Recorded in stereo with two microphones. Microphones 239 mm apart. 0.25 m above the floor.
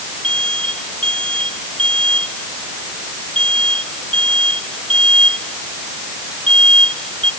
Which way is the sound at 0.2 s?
5° left (ahead or behind).